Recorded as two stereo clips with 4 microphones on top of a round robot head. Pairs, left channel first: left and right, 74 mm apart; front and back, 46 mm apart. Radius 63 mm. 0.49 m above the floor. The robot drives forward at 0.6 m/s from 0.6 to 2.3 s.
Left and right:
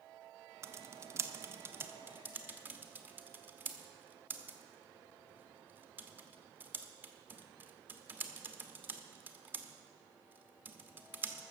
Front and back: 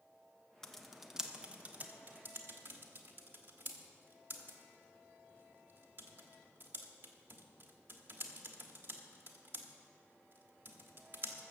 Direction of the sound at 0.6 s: 75° right.